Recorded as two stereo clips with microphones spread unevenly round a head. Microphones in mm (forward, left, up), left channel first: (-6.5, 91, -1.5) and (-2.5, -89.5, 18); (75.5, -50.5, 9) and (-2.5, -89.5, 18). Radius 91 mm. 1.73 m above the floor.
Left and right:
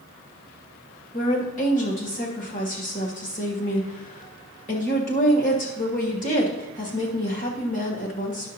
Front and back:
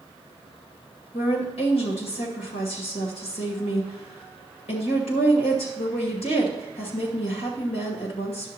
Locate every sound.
1.1 s a woman speaking: 40° left, 2 m